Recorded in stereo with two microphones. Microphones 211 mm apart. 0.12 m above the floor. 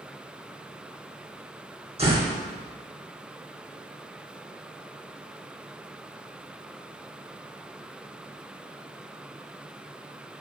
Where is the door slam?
30° right (ahead or behind), 3.5 m.